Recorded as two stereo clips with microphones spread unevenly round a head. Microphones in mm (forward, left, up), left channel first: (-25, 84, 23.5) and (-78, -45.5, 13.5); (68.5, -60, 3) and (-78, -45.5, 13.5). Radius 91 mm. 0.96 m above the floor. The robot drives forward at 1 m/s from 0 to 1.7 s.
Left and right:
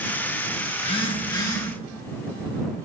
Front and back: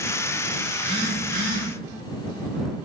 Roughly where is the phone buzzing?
Left.